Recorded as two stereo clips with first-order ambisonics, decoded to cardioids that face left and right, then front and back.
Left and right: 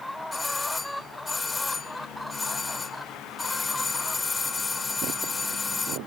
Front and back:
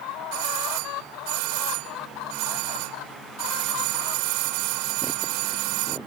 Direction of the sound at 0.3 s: 170° left.